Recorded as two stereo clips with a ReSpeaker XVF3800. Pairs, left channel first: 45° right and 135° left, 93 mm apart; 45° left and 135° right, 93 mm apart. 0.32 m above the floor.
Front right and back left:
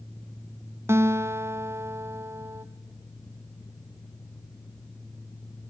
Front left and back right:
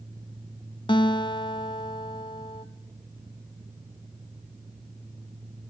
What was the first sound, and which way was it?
A guitar, 75° left.